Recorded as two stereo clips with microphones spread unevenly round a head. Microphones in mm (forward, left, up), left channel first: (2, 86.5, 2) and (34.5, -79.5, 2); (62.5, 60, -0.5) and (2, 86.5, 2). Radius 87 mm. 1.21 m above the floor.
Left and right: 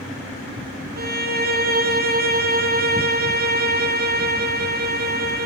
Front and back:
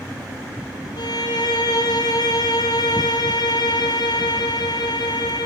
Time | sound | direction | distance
1.0 | a violin | 45° right | 2 m